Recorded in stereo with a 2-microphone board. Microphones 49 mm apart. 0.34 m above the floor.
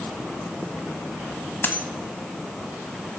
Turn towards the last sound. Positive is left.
turn(degrees=45)  # may be behind; listen again after turning